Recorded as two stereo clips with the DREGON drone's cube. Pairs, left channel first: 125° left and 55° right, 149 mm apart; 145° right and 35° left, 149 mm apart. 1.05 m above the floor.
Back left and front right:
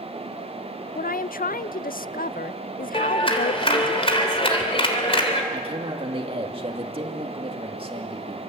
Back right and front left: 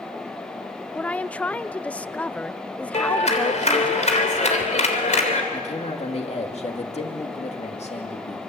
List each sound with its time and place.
0.9 s a woman speaking: 135° left, 0.5 m
2.9 s a clap: 175° left, 3 m
5.5 s a man speaking: 105° right, 2 m